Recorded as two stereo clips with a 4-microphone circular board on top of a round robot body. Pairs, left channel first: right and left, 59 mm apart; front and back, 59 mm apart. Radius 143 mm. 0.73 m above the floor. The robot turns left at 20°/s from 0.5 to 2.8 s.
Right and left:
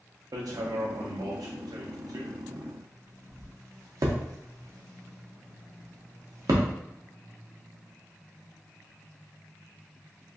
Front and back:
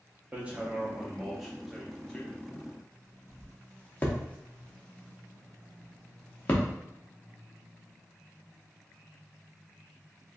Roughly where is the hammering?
Left.